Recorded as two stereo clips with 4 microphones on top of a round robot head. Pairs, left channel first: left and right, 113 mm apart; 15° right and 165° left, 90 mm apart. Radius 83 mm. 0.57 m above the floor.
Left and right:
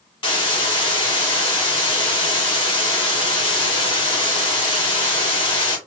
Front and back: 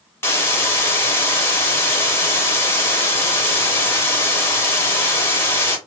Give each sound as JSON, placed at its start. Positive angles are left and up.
{"t": 0.2, "sound": "a hiss", "azimuth_deg": 45, "distance_m": 1.8}